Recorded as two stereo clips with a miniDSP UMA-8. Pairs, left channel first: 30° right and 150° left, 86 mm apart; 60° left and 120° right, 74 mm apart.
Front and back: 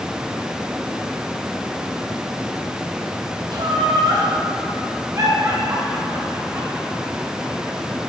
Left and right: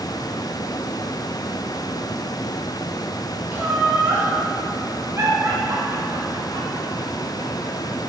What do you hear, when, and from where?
3.5 s laughter: 175° left, 3 m; by 8.0 s 125° right, 3 m